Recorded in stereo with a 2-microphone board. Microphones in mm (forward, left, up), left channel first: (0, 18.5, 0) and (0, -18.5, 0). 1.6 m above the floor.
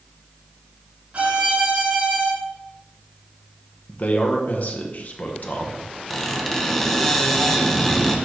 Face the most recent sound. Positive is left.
turn(degrees=10)  # may be behind; listen again after turning